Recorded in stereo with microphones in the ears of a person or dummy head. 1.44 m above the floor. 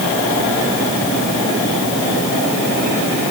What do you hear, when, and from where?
Only background noise.